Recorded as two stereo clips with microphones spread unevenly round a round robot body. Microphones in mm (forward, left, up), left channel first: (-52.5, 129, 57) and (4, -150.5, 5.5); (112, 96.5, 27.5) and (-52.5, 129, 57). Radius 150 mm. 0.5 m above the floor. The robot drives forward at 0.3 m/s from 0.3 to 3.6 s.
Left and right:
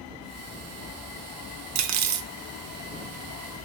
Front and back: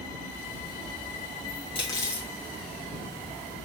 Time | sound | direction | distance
1.8 | cutlery clinking | 70° right | 0.5 m